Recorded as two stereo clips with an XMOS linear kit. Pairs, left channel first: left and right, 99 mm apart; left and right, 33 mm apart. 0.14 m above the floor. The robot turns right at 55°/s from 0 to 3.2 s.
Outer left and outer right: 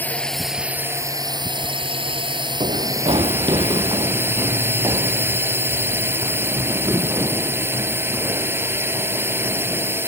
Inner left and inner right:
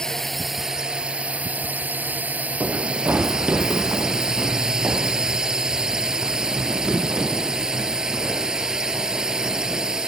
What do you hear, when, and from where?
0.0 s a drone: 160° left; by 10.1 s 25° right
2.6 s running footsteps: 75° right (ahead or behind); by 10.0 s 25° right (ahead or behind)